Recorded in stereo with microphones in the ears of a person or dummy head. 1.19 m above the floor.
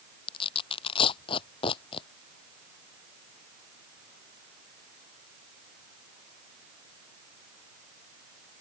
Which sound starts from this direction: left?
Tearing paper, at 0.3 s.